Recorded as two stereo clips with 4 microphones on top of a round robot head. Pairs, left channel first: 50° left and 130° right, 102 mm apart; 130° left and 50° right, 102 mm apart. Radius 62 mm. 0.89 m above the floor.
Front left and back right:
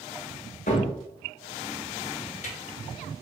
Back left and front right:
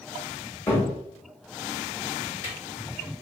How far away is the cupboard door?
About 1.5 m.